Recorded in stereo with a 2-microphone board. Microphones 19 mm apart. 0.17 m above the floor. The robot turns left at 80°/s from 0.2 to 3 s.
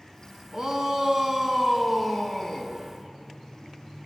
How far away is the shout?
About 1.1 m.